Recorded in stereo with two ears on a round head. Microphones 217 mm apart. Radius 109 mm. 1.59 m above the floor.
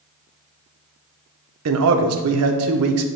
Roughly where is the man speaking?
Right.